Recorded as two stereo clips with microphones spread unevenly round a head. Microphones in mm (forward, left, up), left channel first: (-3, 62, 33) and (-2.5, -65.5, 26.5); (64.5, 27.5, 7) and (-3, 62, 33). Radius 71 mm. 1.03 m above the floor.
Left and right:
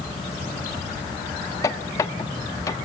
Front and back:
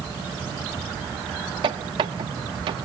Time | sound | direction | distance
1.6 | a squeak | 155° left | 0.8 m